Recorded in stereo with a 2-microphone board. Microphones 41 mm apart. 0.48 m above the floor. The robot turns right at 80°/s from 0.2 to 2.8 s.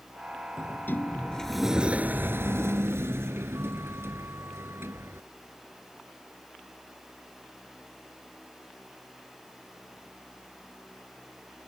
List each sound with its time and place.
0.6 s a sliding door: 100° left; by 5.3 s 80° right